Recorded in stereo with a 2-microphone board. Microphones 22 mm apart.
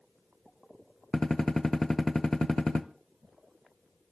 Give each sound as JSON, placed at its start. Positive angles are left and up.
{"t": 1.1, "sound": "a gunshot", "side_deg": 20, "distance_m": 0.9}